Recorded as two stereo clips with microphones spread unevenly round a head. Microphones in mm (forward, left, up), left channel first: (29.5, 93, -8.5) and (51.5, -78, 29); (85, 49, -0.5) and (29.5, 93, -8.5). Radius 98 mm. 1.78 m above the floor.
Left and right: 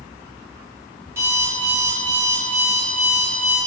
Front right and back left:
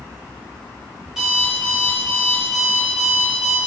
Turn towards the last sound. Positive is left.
turn(degrees=-130)